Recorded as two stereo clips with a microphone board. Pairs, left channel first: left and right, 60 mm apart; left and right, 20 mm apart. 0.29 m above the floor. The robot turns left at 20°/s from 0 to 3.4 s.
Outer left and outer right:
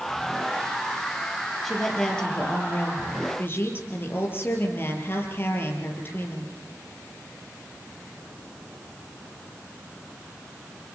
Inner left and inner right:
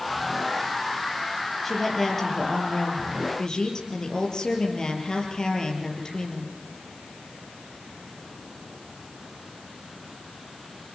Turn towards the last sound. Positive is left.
turn(degrees=140)